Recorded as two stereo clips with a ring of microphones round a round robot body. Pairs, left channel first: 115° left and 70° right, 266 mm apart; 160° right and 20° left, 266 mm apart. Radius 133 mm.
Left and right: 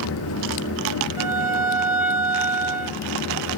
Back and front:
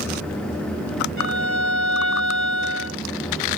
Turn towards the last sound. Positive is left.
turn(degrees=-145)